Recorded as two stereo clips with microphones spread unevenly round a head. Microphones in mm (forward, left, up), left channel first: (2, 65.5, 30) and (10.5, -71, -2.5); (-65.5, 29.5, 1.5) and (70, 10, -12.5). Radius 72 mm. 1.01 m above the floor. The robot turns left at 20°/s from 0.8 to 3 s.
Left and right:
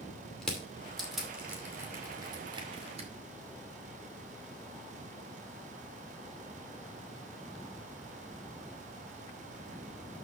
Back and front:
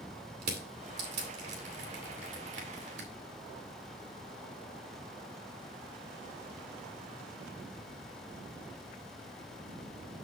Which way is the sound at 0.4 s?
10° left.